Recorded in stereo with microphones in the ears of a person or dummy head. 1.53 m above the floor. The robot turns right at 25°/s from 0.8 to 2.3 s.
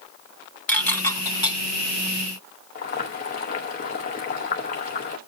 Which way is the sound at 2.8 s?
40° left (ahead or behind).